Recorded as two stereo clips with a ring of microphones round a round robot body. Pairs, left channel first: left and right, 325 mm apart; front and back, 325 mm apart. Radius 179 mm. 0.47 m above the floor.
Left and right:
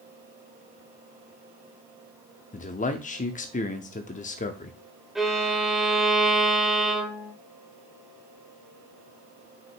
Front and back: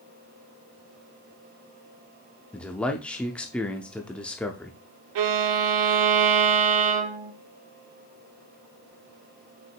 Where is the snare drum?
No snare drum in this recording.